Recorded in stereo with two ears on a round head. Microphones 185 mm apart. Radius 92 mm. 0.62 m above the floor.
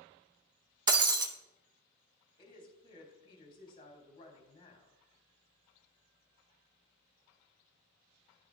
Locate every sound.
0.9 s breaking glass: 20° right (ahead or behind), 0.8 m
2.4 s a woman speaking: 25° left (ahead or behind), 3.5 m